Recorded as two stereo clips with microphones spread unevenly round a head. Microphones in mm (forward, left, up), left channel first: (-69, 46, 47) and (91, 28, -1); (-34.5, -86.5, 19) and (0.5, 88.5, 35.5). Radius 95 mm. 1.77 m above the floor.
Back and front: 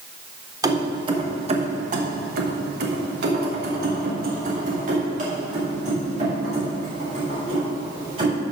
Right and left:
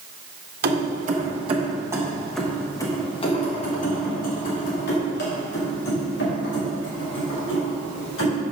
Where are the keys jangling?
70° left, 1.4 m; by 8.4 s 70° right, 4 m.